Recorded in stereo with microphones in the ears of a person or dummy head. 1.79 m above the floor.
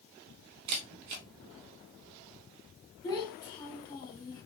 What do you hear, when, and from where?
0.7 s a camera shutter: 35° right (ahead or behind), 0.7 m
3.0 s a child speaking: 20° left (ahead or behind), 2 m